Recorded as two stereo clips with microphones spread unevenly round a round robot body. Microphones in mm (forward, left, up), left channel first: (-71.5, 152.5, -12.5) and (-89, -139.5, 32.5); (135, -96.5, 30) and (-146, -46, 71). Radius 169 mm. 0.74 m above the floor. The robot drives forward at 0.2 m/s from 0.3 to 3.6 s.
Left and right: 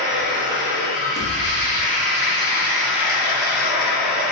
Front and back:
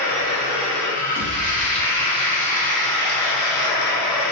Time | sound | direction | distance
0.0 | running water | 20° left | 1.7 m
1.1 | a pop | 150° left | 0.8 m